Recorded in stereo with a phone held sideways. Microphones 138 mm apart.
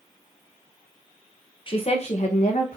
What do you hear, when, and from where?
1.7 s a woman speaking: 40° left (ahead or behind), 0.7 m; by 2.8 s 65° left (ahead or behind), 1.0 m